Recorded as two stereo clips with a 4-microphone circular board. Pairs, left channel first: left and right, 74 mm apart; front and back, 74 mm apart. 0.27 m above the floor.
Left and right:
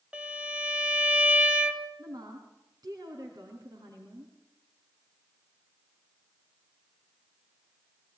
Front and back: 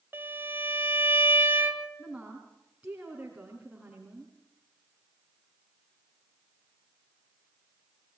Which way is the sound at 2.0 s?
105° right.